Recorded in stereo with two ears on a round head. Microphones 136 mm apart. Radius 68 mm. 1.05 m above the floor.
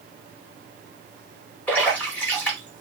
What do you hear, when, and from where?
1.7 s a splash: 10° left (ahead or behind), 2 m